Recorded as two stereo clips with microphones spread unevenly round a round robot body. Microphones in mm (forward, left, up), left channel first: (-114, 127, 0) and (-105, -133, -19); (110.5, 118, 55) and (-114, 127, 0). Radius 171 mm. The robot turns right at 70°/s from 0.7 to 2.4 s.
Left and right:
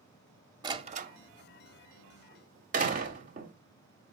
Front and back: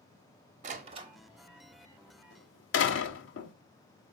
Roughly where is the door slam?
Behind right.